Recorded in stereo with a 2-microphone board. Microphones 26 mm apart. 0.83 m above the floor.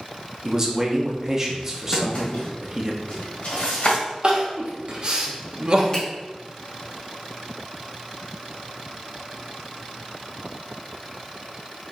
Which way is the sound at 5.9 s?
30° left (ahead or behind).